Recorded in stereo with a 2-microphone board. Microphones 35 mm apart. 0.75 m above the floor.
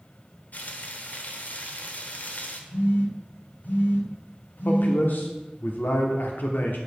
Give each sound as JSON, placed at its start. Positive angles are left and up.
{"t": 0.5, "sound": "frying", "side_deg": 55, "distance_m": 1.0}
{"t": 2.7, "sound": "a phone buzzing", "side_deg": 70, "distance_m": 2.0}
{"t": 4.7, "sound": "a man speaking", "side_deg": 70, "distance_m": 1.3}